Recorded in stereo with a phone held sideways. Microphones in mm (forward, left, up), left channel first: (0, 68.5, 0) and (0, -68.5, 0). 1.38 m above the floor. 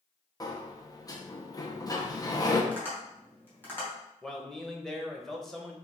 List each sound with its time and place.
0.4 s a sliding door: 25° left (ahead or behind), 0.6 m
2.7 s tapping: 15° left (ahead or behind), 2 m
4.2 s a man speaking: centre (ahead or behind), 0.9 m